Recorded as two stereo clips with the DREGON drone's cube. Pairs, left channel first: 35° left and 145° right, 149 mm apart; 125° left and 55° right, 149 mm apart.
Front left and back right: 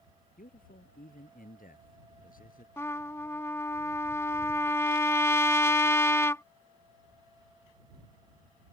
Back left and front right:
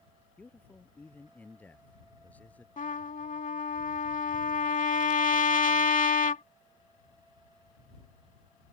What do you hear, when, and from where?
0.4 s a man speaking: 45° left
2.8 s a trumpet: 105° left